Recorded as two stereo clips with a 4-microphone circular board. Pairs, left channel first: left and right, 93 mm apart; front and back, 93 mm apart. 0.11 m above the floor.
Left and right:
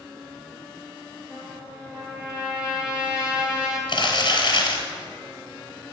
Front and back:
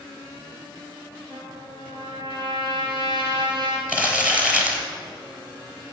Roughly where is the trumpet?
Behind.